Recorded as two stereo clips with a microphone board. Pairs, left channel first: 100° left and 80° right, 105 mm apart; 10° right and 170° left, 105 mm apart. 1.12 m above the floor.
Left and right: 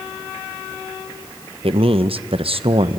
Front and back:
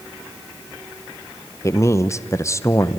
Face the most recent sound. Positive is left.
turn(degrees=-75)